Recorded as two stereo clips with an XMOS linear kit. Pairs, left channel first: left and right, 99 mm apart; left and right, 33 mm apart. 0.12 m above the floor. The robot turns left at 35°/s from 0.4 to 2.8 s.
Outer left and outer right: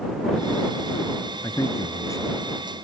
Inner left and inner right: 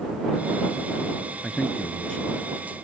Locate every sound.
1.4 s a man speaking: 85° left; by 2.3 s 50° left